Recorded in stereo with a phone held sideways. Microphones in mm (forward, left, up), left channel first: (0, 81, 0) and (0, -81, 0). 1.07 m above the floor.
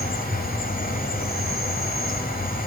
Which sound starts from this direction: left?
An insect, at 0.0 s.